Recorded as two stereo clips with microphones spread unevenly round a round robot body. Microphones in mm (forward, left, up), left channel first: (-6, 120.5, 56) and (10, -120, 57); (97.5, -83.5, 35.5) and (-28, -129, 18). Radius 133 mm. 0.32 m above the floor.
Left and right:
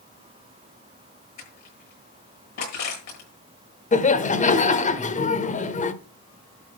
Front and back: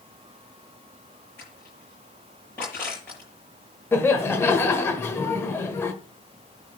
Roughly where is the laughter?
Left.